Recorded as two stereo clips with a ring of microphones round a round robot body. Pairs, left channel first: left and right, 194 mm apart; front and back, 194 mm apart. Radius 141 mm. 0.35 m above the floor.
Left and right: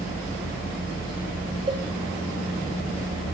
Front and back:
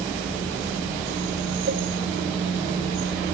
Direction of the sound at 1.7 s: 155° right.